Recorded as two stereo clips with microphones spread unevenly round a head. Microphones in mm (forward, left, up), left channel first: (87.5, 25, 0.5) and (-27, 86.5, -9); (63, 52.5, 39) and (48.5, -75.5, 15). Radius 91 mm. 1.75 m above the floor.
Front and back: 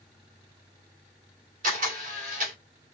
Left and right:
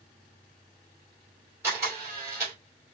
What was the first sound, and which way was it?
A camera shutter, straight behind.